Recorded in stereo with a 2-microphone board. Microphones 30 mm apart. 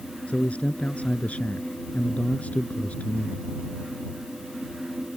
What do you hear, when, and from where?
0.3 s a man speaking: 55° left (ahead or behind)